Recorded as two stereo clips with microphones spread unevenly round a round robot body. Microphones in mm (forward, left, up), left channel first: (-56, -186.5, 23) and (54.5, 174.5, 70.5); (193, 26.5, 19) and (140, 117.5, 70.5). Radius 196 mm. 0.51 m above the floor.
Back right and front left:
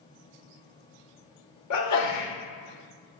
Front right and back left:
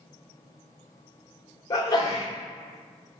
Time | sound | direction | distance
1.7 | a sneeze | 80° right | 2 m